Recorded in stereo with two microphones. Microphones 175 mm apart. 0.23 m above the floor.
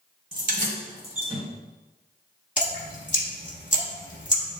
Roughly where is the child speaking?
I don't hear a child speaking.